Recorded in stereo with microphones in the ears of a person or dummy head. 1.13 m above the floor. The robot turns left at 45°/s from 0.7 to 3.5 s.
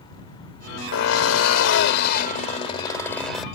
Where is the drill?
110° left; by 3.5 s straight ahead.